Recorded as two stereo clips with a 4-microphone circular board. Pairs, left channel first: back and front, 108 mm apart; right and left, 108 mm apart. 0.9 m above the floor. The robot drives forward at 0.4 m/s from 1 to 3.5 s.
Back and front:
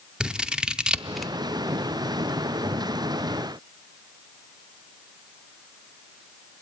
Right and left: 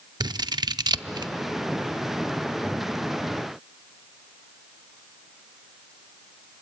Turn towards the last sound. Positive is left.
turn(degrees=160)